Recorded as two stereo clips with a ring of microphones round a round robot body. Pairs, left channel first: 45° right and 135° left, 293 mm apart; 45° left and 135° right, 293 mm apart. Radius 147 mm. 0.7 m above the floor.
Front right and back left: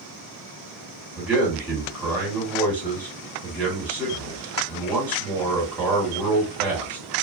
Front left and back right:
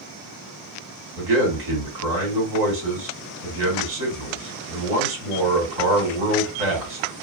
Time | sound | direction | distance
1.2 | a man speaking | 140° right | 2 m